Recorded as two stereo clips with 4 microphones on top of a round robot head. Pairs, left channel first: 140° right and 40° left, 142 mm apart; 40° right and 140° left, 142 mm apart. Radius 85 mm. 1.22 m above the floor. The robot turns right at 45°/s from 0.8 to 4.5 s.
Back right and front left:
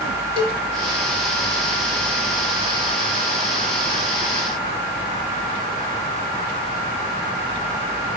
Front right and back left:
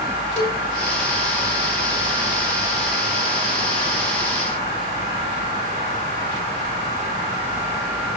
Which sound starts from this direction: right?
A cowbell, at 0.4 s.